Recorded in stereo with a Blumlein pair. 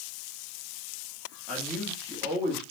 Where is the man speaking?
15° left, 2 m.